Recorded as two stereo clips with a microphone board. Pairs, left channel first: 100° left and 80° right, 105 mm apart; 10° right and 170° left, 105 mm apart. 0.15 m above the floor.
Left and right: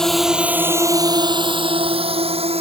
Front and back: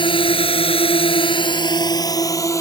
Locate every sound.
0.0 s a drone: 15° left; by 2.6 s 70° right